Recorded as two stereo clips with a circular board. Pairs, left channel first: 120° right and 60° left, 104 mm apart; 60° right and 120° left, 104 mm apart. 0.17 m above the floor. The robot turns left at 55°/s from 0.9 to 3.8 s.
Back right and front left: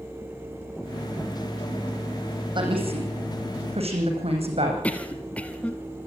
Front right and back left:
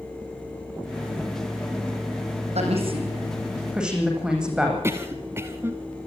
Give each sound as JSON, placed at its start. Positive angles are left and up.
{"t": 2.5, "sound": "a woman speaking", "azimuth_deg": 105, "distance_m": 9.0}
{"t": 4.8, "sound": "a cough", "azimuth_deg": 170, "distance_m": 1.5}